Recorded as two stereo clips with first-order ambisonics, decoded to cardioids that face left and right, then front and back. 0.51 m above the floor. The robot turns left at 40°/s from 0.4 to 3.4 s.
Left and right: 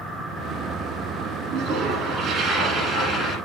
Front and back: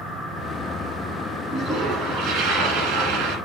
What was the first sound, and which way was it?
A toilet flushing, 125° right.